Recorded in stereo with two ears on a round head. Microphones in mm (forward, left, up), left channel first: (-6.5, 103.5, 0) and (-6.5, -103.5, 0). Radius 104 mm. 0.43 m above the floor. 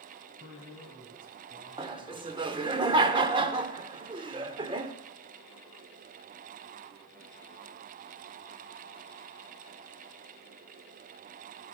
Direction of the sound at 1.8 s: 20° right (ahead or behind).